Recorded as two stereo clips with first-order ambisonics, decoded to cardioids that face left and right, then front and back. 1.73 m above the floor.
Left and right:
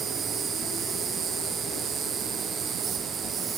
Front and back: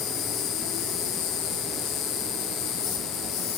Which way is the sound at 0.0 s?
25° right.